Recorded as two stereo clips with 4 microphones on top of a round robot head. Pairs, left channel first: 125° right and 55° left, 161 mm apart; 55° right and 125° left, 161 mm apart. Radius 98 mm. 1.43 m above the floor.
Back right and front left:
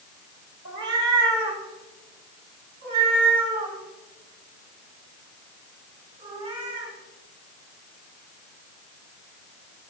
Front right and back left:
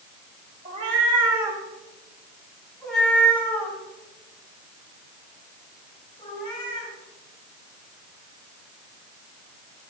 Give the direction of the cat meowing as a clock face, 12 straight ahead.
10 o'clock.